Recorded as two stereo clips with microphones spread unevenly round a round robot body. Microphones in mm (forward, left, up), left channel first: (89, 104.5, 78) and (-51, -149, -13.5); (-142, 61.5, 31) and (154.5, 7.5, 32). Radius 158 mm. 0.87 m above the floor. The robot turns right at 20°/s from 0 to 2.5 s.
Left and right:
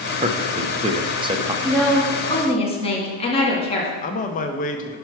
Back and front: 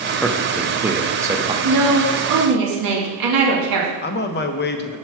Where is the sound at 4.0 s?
135° left, 0.6 m.